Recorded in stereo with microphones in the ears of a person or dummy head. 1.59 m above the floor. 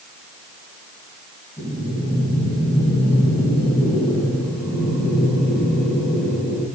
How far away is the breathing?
About 5.5 m.